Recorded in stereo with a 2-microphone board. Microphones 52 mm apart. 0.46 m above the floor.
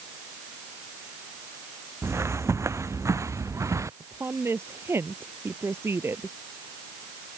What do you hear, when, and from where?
2.0 s footsteps: 60° right (ahead or behind); by 3.9 s 80° right
4.0 s a woman speaking: 55° right (ahead or behind)